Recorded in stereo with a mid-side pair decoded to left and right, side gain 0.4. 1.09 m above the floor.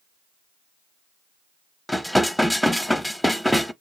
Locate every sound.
1.9 s dishes clattering: 5° left, 0.6 m